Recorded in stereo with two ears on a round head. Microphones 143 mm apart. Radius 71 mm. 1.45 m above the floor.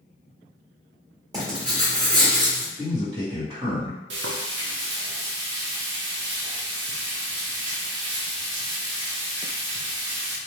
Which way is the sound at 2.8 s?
30° right (ahead or behind).